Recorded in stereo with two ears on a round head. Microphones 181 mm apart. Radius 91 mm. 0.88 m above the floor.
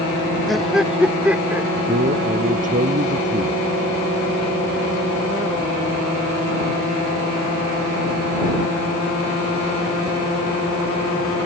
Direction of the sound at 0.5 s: Centre (ahead or behind).